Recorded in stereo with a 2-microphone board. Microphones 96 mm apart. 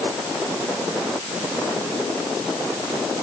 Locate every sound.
Only background noise.